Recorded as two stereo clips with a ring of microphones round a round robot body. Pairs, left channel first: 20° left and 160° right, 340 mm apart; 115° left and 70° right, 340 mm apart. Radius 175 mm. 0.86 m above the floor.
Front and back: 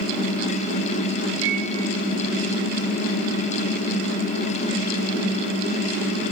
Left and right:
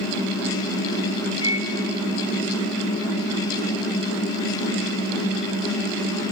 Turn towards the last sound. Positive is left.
turn(degrees=-170)